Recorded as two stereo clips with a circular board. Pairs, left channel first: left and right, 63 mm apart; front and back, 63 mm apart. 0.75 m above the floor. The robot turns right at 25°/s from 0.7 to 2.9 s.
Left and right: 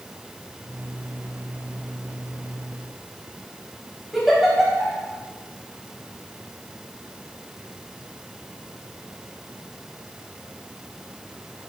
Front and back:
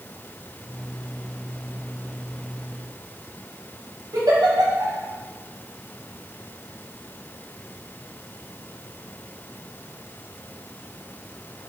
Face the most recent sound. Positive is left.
turn(degrees=180)